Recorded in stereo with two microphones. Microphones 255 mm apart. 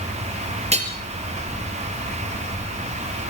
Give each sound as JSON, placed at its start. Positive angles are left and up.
{"t": 0.7, "sound": "hammering", "side_deg": -25, "distance_m": 3.5}